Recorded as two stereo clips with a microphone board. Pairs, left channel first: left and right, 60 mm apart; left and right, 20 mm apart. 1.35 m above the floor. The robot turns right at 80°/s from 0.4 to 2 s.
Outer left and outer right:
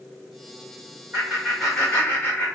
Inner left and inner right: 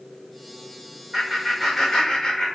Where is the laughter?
25° right, 1.4 m; by 2.5 s 45° left, 1.4 m.